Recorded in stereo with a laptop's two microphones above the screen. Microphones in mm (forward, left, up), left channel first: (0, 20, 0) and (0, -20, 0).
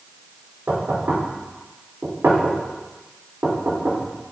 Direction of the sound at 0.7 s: 80° right.